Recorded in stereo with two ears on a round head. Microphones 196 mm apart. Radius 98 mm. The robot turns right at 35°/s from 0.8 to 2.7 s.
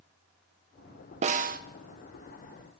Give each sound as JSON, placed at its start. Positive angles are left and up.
{"t": 1.2, "sound": "a snare drum", "side_deg": -30, "distance_m": 0.7}